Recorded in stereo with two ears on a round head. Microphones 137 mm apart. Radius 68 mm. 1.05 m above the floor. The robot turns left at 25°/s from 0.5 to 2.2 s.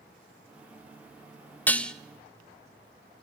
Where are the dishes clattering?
10° left (ahead or behind), 0.7 m; by 1.9 s 5° left (ahead or behind), 0.7 m.